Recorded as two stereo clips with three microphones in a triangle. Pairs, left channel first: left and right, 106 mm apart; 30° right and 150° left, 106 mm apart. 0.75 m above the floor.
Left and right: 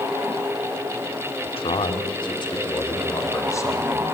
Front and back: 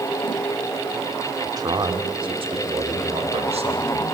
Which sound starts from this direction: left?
A man speaking, at 1.4 s.